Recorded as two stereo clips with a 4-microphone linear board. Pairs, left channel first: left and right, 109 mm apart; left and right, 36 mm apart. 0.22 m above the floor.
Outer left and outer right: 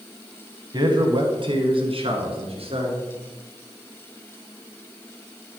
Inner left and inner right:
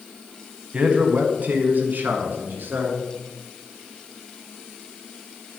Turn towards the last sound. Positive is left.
turn(degrees=-65)  # may be behind; listen again after turning